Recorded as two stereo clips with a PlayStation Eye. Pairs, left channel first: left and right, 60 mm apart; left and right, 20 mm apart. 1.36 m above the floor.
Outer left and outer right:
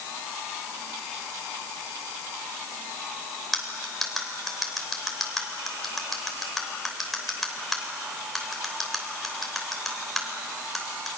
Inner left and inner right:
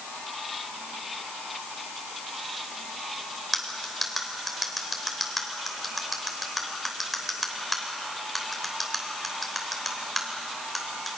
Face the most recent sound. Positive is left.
turn(degrees=0)  # may be behind; listen again after turning